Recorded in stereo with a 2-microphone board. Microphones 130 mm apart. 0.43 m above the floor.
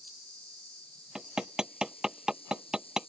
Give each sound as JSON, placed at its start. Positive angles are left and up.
{"t": 0.0, "sound": "an insect", "side_deg": 45}
{"t": 1.1, "sound": "hammering", "side_deg": -5}